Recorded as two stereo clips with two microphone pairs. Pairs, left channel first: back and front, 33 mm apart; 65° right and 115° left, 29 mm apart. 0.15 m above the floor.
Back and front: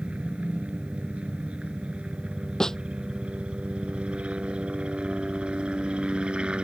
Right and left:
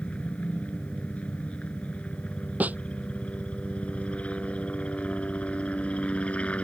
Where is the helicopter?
40° right; by 6.7 s 50° right.